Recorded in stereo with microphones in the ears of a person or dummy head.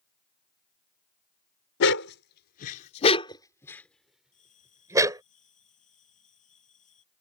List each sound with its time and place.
1.8 s a dog barking: 70° left (ahead or behind); by 5.2 s 15° right (ahead or behind)
4.3 s a bell: 40° left (ahead or behind)